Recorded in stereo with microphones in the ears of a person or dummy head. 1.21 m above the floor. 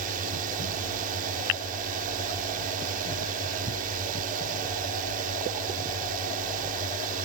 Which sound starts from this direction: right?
A drone, at 0.0 s.